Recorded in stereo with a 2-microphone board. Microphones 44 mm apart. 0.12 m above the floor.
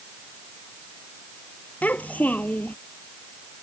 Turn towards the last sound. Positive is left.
turn(degrees=35)  # may be behind; listen again after turning